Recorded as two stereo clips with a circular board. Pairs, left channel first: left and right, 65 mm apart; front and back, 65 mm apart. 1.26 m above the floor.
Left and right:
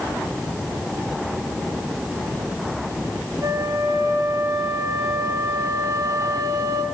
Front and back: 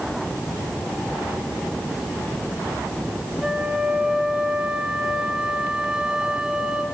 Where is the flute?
105° right, 2 m.